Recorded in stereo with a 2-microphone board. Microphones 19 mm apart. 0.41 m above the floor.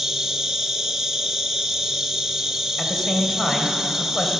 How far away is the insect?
About 1.6 m.